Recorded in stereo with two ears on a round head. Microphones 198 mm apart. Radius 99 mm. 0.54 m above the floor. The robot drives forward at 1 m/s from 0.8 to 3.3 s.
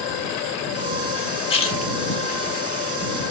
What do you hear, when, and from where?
1.5 s a splash: 25° left (ahead or behind), 1.2 m; by 1.9 s 30° left (ahead or behind), 1.0 m